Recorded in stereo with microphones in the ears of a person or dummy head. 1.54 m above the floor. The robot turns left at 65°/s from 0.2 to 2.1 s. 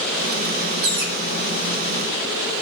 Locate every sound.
0.8 s a bird: 55° right (ahead or behind), 2 m; by 1.1 s 65° right (ahead or behind), 2 m